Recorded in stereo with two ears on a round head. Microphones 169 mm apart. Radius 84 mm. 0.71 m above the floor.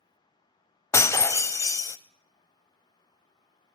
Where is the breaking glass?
15° left (ahead or behind), 0.5 m.